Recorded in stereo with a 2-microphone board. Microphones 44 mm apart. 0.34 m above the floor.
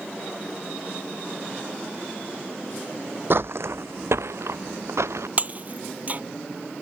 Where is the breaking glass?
40° right (ahead or behind).